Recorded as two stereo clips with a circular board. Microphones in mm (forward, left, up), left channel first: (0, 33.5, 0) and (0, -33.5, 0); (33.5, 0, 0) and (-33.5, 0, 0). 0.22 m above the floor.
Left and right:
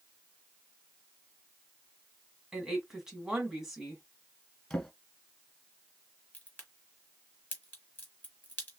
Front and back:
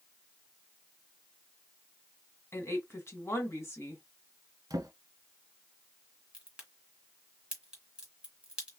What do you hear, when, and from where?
2.5 s a woman speaking: 10° right, 1.5 m
4.7 s a drawer: 170° left, 1.1 m
6.3 s a crack: 125° left, 1.5 m